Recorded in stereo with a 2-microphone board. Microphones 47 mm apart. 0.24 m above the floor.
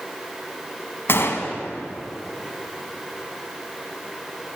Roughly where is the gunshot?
Left.